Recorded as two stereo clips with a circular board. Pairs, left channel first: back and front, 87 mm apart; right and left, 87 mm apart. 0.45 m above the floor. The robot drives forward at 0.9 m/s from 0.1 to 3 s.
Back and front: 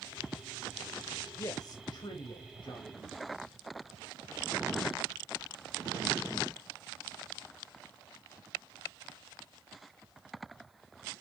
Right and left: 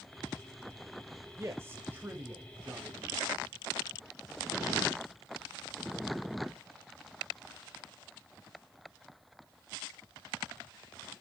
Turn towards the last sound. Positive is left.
turn(degrees=165)